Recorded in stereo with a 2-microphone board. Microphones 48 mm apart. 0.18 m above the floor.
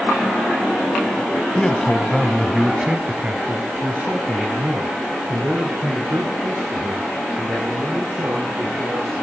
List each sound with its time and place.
1.6 s a man speaking: 20° left (ahead or behind), 1.1 m; by 9.1 s 75° right (ahead or behind), 4 m